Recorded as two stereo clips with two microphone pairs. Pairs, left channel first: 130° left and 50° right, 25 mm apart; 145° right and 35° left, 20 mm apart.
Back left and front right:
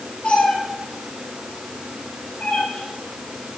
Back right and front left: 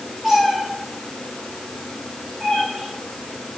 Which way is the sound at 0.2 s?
105° left.